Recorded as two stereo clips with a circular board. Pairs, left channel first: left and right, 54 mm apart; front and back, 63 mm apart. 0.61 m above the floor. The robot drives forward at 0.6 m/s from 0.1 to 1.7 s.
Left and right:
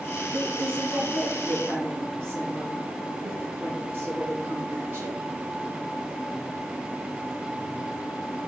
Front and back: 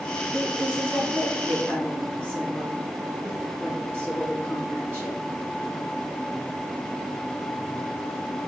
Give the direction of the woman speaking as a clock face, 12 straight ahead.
4 o'clock.